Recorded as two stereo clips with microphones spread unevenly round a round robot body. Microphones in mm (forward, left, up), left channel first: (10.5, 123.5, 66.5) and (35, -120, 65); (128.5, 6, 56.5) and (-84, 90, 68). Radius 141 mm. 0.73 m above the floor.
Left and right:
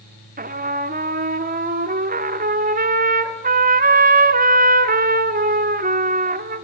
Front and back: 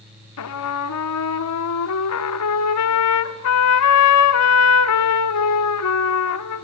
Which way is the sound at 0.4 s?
25° right.